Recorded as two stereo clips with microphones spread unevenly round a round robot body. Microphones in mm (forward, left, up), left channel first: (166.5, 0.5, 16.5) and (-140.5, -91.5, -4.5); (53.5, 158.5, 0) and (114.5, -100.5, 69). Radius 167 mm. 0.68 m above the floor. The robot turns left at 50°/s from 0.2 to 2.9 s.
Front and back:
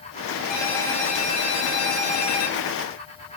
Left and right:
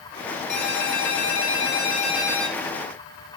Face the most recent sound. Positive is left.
turn(degrees=-5)